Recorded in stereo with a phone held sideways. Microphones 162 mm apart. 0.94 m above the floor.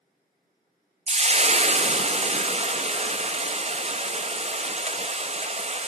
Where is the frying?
40° right (ahead or behind), 0.7 m.